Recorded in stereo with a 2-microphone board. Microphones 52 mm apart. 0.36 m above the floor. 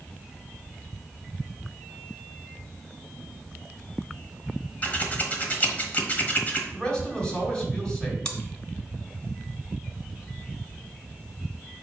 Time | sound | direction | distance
4.8 | scissors | 35° left (ahead or behind) | 1.3 m
6.7 | a man speaking | 10° left (ahead or behind) | 3 m
8.2 | chewing | 20° left (ahead or behind) | 1.1 m